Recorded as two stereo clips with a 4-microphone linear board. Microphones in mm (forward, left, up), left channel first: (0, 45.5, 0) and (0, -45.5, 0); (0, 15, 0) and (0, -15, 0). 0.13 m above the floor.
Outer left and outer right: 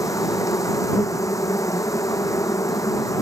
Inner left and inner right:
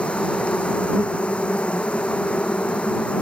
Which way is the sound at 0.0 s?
35° left (ahead or behind).